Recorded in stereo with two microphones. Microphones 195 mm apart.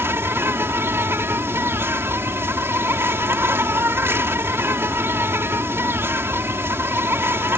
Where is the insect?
10° right (ahead or behind).